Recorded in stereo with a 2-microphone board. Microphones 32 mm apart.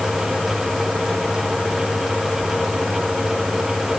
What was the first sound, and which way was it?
Only background noise.